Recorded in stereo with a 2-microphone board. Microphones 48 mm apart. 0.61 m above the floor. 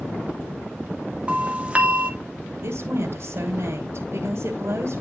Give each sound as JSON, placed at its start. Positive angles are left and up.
{"t": 1.3, "sound": "a doorbell", "side_deg": -25, "distance_m": 2.0}
{"t": 2.6, "sound": "a woman speaking", "side_deg": -60, "distance_m": 2.5}